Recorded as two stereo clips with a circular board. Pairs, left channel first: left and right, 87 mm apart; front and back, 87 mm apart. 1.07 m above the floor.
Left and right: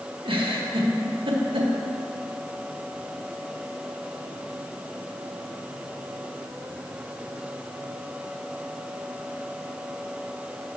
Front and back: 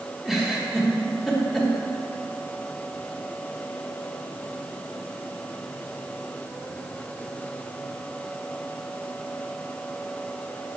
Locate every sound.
0.2 s a giggle: 90° right, 1.0 m